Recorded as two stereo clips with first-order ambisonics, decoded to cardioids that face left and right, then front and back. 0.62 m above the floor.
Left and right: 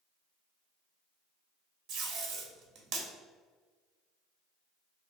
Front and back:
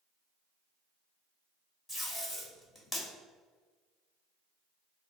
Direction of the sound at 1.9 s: 75° right.